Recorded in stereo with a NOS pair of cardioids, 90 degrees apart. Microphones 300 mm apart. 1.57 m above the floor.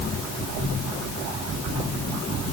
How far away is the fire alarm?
I don't hear a fire alarm.